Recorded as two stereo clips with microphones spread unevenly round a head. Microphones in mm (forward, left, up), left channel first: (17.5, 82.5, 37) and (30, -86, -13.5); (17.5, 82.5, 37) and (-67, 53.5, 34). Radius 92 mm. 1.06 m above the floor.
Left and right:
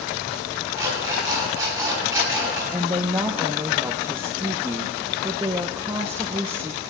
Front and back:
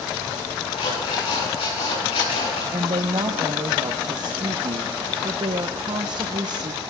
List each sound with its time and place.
0.8 s an alarm clock: 10° right, 7.5 m
2.7 s a woman speaking: 145° right, 0.6 m